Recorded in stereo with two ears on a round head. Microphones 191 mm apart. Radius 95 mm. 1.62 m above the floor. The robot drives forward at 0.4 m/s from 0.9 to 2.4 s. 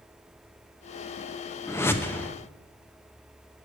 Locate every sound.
1.7 s a whoosh: 10° left (ahead or behind), 0.6 m